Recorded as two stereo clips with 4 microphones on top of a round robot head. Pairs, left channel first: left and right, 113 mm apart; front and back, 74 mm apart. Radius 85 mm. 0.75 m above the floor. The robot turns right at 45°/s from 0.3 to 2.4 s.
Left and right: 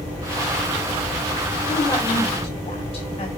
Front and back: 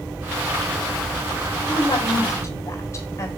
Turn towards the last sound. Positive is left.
turn(degrees=45)